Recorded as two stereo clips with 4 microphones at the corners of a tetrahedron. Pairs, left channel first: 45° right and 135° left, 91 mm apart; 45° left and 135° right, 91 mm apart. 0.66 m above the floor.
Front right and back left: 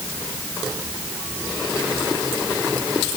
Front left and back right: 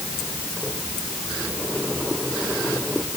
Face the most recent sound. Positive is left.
No sound to turn to.